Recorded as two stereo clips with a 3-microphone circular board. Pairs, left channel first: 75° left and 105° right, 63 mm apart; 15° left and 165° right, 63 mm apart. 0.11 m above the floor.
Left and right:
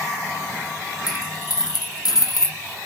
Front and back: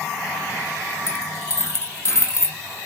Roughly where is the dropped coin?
Ahead left.